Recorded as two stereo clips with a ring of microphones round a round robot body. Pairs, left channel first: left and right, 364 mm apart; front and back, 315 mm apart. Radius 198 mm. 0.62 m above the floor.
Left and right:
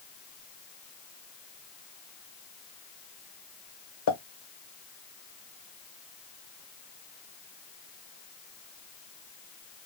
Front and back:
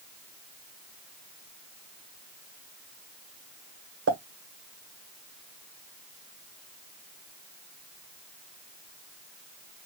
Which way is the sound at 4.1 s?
135° left.